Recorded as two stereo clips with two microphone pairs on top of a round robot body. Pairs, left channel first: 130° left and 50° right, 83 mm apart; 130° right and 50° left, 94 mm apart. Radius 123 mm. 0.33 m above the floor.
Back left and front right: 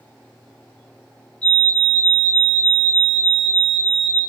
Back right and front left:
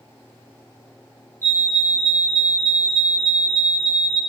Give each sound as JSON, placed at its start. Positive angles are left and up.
{"t": 1.4, "sound": "a fire alarm", "azimuth_deg": 70, "distance_m": 2.0}